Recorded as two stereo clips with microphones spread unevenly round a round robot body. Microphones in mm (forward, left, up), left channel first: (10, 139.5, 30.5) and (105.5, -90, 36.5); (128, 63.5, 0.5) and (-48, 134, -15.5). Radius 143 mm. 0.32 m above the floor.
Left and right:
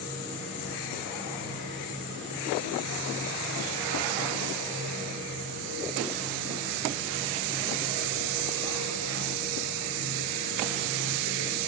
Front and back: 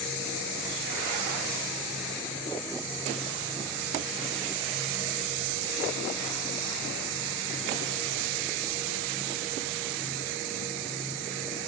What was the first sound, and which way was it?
Only background noise.